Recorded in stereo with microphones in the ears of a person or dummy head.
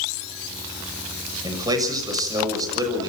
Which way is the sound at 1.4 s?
25° right (ahead or behind).